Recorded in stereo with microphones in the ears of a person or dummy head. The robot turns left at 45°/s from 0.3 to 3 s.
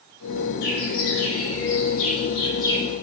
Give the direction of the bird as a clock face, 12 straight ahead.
8 o'clock.